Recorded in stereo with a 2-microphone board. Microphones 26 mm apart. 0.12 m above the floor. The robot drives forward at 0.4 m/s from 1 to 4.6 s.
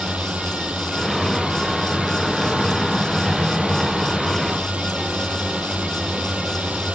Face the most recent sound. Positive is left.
turn(degrees=-65)  # may be behind; listen again after turning